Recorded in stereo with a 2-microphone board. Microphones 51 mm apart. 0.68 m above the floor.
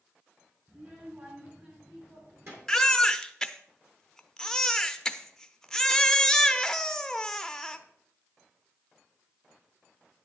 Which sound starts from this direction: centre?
A baby crying, at 2.7 s.